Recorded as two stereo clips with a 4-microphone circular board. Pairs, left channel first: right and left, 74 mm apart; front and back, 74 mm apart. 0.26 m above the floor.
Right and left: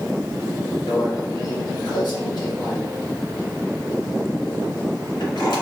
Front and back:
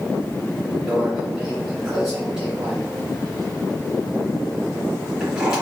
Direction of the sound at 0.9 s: 100° right.